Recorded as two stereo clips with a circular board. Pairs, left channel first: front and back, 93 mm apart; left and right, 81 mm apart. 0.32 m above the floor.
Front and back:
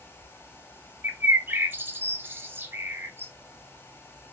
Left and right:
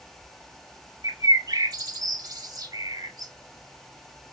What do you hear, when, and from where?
1.0 s a bird: 115° right, 0.5 m